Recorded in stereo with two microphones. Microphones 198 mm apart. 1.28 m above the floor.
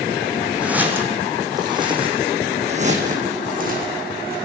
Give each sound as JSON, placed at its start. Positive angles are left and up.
{"t": 0.6, "sound": "footsteps", "side_deg": -5, "distance_m": 4.5}